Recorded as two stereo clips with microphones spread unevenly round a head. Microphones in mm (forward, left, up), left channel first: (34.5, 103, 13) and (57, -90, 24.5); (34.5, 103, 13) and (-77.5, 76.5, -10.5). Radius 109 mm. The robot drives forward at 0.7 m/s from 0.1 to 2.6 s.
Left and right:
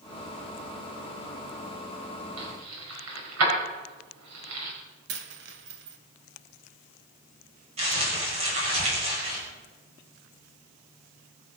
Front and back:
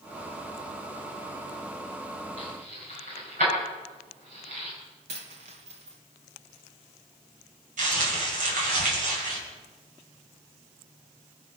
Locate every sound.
2.4 s keys jangling: 110° right, 5 m
5.1 s a dropped coin: 115° right, 1.6 m
7.8 s crumpling: 150° right, 5.5 m